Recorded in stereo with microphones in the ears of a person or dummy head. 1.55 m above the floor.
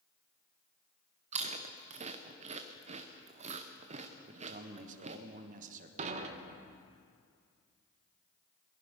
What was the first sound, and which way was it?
Chewing, 40° right (ahead or behind).